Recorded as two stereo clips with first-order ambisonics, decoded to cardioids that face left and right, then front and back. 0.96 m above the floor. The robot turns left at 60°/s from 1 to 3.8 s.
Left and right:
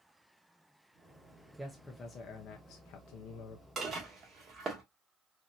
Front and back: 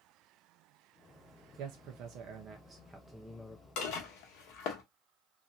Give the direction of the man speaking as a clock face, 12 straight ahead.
6 o'clock.